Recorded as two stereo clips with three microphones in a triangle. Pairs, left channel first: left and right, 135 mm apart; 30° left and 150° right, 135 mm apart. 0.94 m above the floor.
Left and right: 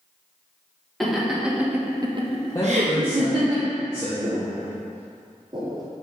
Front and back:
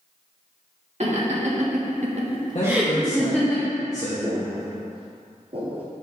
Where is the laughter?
Straight behind, 2 m; by 3.5 s 40° right, 1.8 m.